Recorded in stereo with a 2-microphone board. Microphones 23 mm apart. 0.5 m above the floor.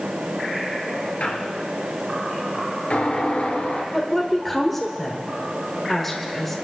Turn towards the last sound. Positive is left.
turn(degrees=5)  # may be behind; listen again after turning